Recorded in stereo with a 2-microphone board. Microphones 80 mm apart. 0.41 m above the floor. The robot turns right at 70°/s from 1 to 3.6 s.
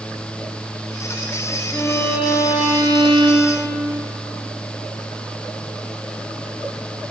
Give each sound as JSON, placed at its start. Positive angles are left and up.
{"t": 1.7, "sound": "a violin", "azimuth_deg": 155, "distance_m": 6.5}